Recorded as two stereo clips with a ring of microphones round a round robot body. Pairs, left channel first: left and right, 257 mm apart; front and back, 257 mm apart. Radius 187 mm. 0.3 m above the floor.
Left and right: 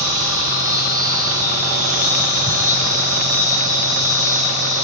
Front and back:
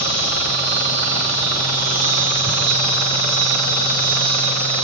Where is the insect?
170° left, 9.5 m.